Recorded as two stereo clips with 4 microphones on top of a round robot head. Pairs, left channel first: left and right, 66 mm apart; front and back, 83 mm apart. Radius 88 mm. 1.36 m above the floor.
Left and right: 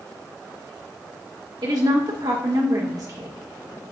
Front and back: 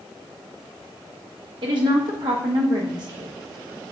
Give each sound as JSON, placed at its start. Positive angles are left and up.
{"t": 1.6, "sound": "a woman speaking", "azimuth_deg": -135, "distance_m": 1.2}